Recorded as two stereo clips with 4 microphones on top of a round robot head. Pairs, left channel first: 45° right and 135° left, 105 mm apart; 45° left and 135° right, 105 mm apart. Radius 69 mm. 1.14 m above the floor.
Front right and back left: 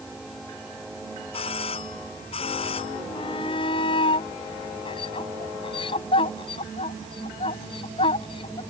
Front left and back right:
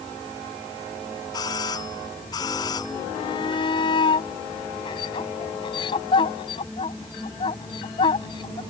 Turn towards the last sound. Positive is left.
turn(degrees=0)